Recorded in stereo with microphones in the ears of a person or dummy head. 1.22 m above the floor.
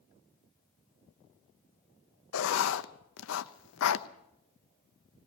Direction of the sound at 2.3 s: 65° left (ahead or behind).